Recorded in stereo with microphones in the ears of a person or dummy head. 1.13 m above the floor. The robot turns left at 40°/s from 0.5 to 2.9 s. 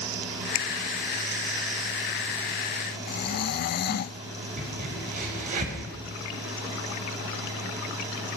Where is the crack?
45° right (ahead or behind), 5.5 m.